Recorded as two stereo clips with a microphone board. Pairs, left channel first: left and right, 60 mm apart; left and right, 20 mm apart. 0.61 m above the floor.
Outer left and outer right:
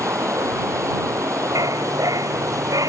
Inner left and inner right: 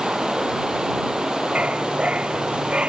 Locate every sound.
0.0 s running water: 55° right (ahead or behind)
1.6 s a dog barking: 75° right (ahead or behind)